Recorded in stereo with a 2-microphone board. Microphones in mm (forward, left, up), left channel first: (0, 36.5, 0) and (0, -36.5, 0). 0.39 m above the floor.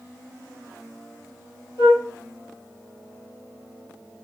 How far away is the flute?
About 3 m.